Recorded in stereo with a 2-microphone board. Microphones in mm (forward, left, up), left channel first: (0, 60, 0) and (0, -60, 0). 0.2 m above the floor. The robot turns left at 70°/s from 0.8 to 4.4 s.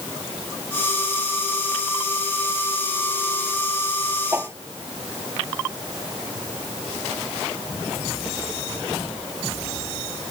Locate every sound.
4.3 s a whoosh: 20° right (ahead or behind); by 4.5 s 25° right (ahead or behind)